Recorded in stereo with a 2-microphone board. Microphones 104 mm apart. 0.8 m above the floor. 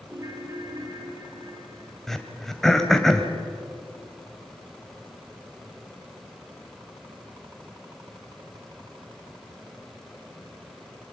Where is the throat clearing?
5° left (ahead or behind), 2 m.